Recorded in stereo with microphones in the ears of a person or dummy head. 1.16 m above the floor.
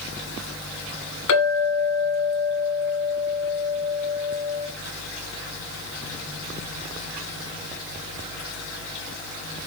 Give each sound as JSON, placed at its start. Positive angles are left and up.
{"t": 1.3, "sound": "a clink", "side_deg": 75, "distance_m": 2.5}